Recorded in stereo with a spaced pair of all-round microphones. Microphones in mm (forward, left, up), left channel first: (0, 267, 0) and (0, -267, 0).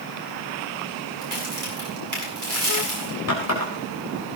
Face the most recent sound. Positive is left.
turn(degrees=30)  # may be behind; listen again after turning